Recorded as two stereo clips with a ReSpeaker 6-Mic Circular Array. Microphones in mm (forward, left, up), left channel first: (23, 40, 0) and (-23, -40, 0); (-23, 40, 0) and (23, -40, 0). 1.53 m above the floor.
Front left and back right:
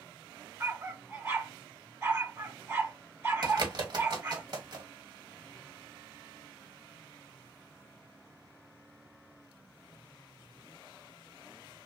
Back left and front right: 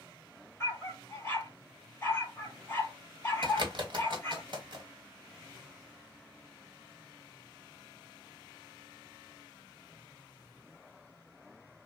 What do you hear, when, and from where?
0.6 s a dog barking: straight behind, 2 m
3.4 s a bird: 85° right, 1.4 m